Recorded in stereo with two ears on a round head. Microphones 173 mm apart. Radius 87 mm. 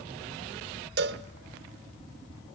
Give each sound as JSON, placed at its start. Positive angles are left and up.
{"t": 1.0, "sound": "a cowbell", "side_deg": -55, "distance_m": 1.0}